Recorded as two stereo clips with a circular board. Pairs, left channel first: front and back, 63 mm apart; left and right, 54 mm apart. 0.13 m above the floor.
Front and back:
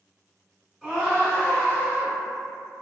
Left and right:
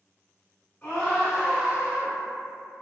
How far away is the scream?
About 1.3 m.